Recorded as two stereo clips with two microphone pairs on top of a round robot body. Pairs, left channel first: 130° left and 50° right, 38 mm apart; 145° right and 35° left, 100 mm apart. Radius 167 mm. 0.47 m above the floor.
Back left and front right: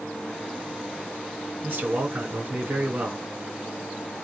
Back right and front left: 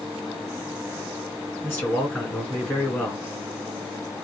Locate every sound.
1.6 s a man speaking: 75° right, 2.5 m